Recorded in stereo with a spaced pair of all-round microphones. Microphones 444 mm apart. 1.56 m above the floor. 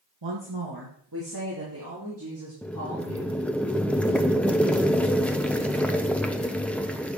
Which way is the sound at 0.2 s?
65° right (ahead or behind).